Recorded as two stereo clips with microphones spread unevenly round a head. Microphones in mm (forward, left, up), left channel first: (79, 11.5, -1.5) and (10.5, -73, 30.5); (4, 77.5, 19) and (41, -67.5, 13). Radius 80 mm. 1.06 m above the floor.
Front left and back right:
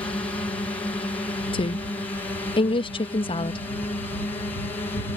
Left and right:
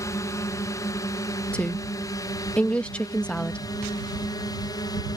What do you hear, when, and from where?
0.0 s a drone: 55° left; by 5.2 s 60° left
1.5 s a woman speaking: 20° left